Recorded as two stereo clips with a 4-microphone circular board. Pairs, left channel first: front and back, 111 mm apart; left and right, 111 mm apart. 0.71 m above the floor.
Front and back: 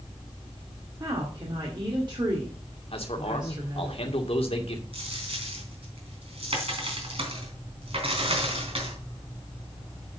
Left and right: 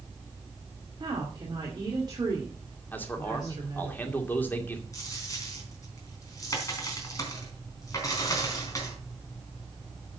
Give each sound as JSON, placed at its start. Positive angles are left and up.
{"t": 1.0, "sound": "a woman speaking", "azimuth_deg": -135, "distance_m": 2.5}
{"t": 2.9, "sound": "a man speaking", "azimuth_deg": 20, "distance_m": 2.0}
{"t": 4.9, "sound": "a dropped coin", "azimuth_deg": 150, "distance_m": 3.5}